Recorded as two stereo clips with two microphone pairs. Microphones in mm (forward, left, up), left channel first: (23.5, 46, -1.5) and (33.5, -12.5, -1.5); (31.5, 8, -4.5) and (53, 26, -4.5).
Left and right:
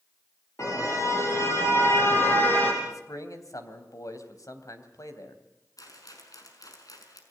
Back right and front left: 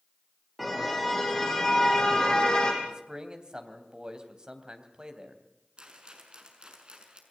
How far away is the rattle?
About 5.5 m.